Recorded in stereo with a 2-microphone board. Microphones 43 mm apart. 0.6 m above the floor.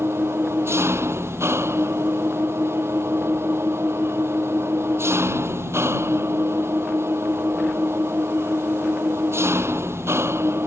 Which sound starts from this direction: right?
An engine running, at 0.0 s.